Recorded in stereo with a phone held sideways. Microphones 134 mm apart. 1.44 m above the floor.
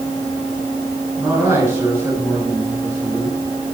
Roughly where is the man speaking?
Centre.